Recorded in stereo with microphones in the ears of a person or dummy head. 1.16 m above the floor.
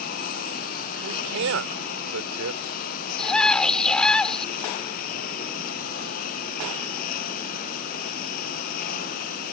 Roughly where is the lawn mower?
Left.